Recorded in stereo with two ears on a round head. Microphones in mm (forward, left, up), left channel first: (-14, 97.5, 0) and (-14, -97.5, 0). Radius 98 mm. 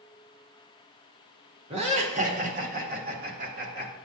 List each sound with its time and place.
1.7 s laughter: 30° right (ahead or behind), 1.3 m; by 3.9 s 45° right (ahead or behind), 1.5 m